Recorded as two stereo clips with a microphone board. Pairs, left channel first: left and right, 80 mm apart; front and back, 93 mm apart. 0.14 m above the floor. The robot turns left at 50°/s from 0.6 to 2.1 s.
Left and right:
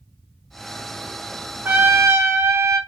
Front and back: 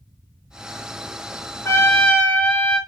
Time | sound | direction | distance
1.6 | a trumpet | 40° right | 0.6 m